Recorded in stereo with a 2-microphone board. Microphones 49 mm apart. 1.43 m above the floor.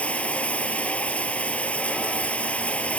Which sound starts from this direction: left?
Running water, at 0.0 s.